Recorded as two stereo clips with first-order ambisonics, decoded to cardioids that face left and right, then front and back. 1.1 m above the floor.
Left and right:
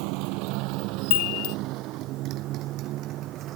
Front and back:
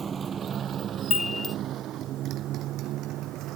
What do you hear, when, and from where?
0.0 s a motorcycle: 110° right; by 3.6 s 135° right
1.1 s a chime: 75° left